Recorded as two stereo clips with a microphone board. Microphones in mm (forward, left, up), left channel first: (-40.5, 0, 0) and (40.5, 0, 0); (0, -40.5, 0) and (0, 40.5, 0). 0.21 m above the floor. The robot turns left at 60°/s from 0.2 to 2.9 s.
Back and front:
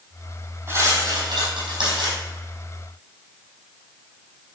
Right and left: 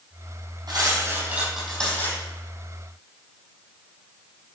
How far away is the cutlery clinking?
About 4.5 m.